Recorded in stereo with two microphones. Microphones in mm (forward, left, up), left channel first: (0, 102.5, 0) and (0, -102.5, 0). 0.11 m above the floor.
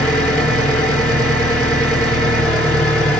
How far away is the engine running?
About 1.8 m.